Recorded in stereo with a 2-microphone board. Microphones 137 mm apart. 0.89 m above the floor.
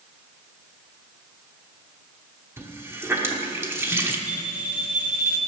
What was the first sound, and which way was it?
A running tap, 15° right (ahead or behind).